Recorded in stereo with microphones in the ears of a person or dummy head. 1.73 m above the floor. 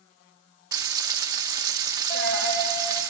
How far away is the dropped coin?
About 3.5 m.